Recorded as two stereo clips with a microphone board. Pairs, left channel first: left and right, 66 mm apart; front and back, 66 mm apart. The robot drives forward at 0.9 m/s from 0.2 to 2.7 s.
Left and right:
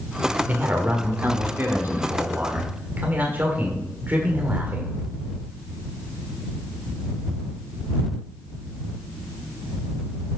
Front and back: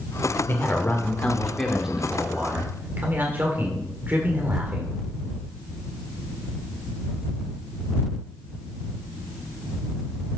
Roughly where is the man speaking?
Ahead right.